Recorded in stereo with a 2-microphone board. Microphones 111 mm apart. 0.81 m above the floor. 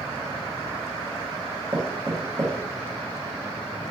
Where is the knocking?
35° right (ahead or behind), 1.1 m.